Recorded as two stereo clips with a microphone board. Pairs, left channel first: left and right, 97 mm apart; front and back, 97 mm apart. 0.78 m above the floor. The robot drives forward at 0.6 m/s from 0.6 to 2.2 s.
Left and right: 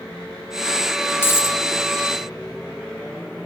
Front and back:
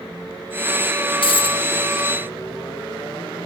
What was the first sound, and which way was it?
A dropped coin, 25° left.